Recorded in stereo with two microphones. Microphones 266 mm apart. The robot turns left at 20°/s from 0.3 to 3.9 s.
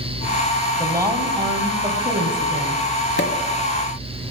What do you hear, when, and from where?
0.8 s a woman speaking: 15° right, 1.8 m; by 2.8 s 55° right, 1.8 m
3.2 s a pop: 55° left (ahead or behind), 1.2 m